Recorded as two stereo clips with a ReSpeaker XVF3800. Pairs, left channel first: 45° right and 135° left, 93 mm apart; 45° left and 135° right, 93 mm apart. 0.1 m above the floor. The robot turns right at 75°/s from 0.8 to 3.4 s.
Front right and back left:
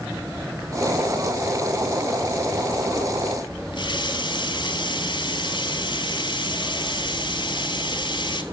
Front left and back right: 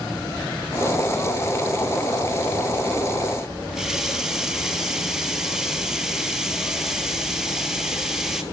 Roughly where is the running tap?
Ahead right.